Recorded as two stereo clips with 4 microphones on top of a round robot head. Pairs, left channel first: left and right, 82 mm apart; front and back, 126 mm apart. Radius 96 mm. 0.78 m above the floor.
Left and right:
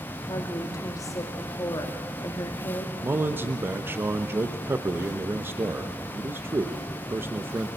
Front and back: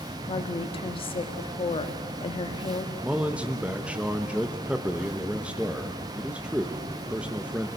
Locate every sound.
0.3 s a woman speaking: 40° left, 1.6 m
3.0 s a man speaking: 110° right, 0.9 m